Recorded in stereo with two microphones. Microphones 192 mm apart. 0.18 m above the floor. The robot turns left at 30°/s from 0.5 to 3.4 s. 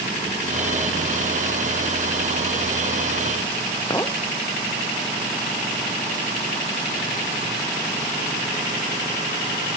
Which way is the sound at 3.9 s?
15° left (ahead or behind).